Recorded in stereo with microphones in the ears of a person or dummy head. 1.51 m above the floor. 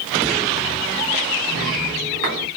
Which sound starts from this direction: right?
A sliding door, at 1.5 s.